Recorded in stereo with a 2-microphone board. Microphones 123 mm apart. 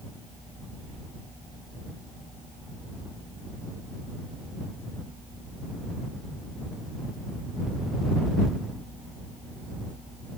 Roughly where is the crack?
No crack in this recording.